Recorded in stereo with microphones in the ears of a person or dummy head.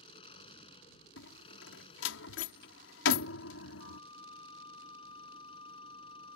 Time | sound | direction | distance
0.0 | an engine running | 35° left (ahead or behind) | ?
1.2 | a door slam | 80° left | ?
3.8 | a flute | 25° left (ahead or behind) | ?